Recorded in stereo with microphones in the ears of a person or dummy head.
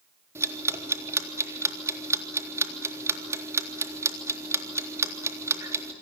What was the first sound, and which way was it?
Ticking, 15° right (ahead or behind).